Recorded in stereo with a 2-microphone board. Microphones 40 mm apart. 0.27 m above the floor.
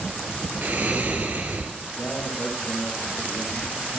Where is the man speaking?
40° left (ahead or behind), 6 m.